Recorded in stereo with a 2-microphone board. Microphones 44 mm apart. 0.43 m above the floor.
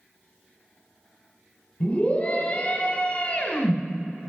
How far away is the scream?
About 1.8 m.